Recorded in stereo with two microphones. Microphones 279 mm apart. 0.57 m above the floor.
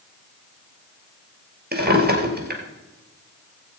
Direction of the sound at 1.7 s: 35° right (ahead or behind).